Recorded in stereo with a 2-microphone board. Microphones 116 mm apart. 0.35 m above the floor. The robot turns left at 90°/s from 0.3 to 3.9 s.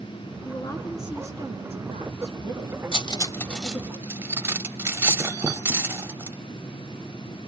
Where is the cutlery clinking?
50° left (ahead or behind), 0.9 m; by 6.4 s 20° right (ahead or behind), 0.9 m.